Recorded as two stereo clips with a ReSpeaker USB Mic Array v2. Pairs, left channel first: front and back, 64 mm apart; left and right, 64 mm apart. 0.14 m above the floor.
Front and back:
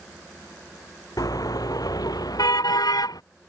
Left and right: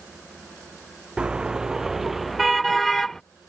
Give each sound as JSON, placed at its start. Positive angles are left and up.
{"t": 1.2, "sound": "a car horn", "azimuth_deg": -15}